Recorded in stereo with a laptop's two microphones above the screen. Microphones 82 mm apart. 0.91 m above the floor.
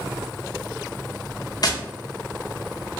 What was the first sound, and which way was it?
Tapping, 50° left (ahead or behind).